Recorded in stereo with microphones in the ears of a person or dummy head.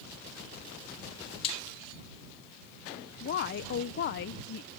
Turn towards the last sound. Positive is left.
turn(degrees=55)  # may be behind; listen again after turning